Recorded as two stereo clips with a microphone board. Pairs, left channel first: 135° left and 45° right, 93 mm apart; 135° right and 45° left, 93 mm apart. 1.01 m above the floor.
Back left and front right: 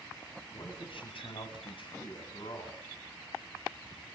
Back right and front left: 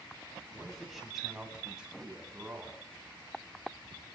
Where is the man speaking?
135° left, 8.5 m; by 2.8 s 120° left, 9 m.